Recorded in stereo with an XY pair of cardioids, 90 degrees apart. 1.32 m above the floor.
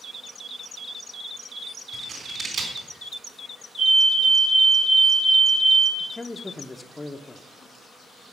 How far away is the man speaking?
About 0.7 m.